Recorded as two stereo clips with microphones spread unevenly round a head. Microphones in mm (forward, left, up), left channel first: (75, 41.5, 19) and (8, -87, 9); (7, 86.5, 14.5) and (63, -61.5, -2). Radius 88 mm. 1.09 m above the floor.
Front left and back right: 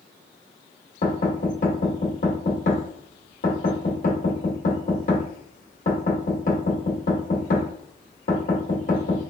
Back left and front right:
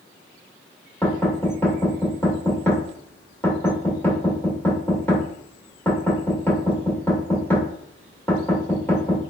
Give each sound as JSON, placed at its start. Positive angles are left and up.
{"t": 1.0, "sound": "knocking", "azimuth_deg": 35, "distance_m": 1.6}